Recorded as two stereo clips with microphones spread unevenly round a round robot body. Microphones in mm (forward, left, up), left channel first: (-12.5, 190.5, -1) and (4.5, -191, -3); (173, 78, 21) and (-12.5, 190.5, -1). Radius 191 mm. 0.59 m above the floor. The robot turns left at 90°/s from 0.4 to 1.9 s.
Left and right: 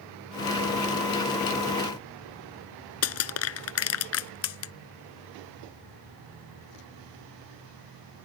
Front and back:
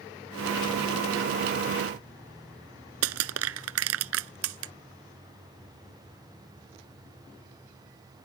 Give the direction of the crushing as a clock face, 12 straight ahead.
7 o'clock.